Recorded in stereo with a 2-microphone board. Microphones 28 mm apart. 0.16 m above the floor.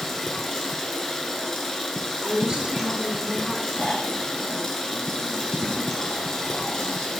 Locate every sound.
0.0 s running water: 15° left (ahead or behind), 1.2 m
2.2 s a woman speaking: 35° right (ahead or behind), 2 m
3.8 s snoring: 50° left (ahead or behind), 1.4 m